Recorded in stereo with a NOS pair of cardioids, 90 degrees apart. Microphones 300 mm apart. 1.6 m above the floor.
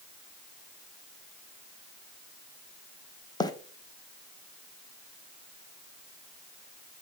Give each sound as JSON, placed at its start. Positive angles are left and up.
{"t": 3.4, "sound": "a bird", "azimuth_deg": 15, "distance_m": 1.0}